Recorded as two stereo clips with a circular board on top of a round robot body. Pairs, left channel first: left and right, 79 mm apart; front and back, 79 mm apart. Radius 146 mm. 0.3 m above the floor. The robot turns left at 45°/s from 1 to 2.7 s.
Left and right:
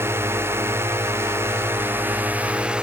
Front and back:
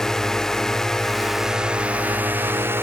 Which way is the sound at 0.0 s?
80° right.